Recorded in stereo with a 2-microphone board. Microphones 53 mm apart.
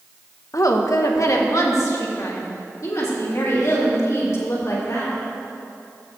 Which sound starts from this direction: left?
A woman speaking, at 0.5 s.